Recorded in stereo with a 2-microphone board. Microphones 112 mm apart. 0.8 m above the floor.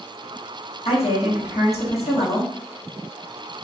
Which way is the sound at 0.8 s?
70° left (ahead or behind).